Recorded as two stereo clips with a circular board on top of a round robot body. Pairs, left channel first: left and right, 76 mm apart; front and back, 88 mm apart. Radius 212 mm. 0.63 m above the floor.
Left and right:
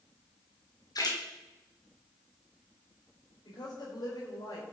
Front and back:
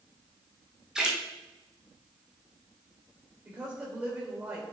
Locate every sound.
0.9 s a splash: 100° left, 2 m
3.5 s a woman speaking: 110° left, 4 m